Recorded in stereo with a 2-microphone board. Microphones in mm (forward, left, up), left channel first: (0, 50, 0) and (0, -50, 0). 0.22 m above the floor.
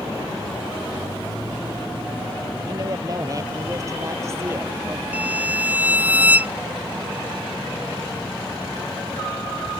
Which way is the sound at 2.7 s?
40° right (ahead or behind).